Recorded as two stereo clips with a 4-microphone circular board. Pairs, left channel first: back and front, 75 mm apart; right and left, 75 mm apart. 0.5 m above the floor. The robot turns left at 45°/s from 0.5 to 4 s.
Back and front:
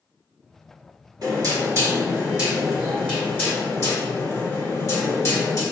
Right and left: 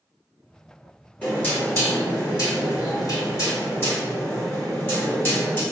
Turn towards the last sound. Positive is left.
turn(degrees=-145)